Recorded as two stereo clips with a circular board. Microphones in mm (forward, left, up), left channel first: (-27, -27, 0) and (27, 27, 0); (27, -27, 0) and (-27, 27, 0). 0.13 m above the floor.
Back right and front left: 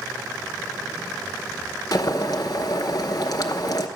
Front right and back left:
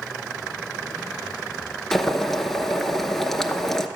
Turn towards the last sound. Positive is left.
turn(degrees=-130)